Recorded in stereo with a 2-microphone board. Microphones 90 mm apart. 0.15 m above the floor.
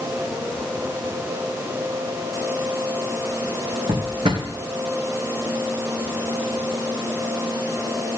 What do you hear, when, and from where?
3.9 s a drawer: 65° right (ahead or behind), 2.5 m